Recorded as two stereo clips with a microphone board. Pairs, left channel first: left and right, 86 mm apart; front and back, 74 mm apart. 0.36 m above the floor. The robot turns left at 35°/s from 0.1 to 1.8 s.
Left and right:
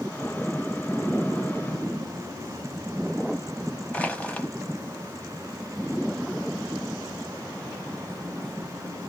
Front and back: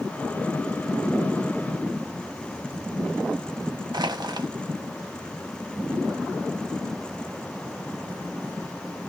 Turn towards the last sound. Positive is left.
turn(degrees=165)